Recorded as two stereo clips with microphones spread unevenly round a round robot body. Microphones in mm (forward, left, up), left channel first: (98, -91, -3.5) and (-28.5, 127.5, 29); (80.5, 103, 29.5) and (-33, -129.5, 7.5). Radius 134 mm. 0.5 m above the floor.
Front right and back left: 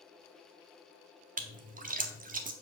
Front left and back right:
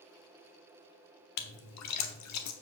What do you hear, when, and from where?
1.4 s a splash: 60° left, 1.3 m